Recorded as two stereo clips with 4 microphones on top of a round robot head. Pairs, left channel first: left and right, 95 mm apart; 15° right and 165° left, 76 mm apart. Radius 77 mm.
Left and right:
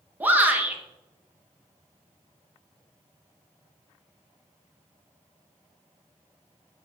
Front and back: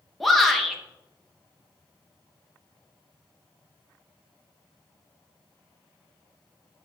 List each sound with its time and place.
0.2 s a shout: 95° right, 1.0 m